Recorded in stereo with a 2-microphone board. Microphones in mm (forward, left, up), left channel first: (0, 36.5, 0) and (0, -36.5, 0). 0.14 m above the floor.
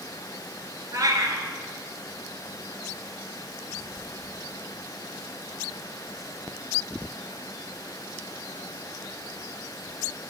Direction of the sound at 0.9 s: 55° right (ahead or behind).